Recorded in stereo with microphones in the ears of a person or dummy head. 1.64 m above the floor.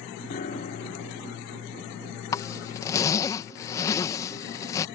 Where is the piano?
40° left (ahead or behind).